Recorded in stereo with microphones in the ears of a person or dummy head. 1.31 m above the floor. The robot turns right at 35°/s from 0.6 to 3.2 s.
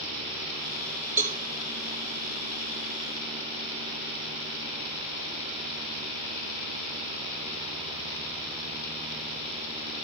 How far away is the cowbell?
About 1.3 m.